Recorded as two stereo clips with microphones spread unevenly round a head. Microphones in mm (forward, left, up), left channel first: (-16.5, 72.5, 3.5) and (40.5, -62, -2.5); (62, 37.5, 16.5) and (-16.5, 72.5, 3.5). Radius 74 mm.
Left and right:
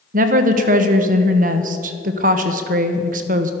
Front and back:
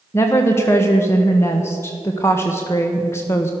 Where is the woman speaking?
95° right, 1.2 m.